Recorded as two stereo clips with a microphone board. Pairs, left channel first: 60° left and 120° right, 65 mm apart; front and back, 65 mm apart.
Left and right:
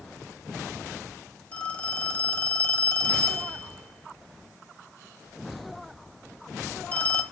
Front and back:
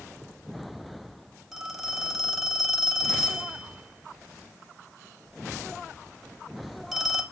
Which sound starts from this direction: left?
A phone ringing, at 1.5 s.